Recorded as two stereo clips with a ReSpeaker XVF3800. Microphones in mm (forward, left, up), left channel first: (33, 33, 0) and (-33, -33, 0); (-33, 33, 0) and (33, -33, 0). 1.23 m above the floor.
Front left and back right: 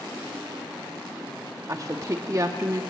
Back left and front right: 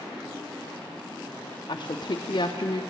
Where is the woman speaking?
165° left, 0.5 m.